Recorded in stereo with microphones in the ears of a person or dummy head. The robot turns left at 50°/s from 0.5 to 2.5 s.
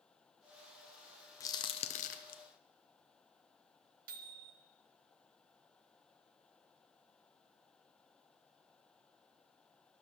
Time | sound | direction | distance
1.4 | a crack | 20° left (ahead or behind) | 0.6 m
4.1 | a microwave | 50° right (ahead or behind) | 0.9 m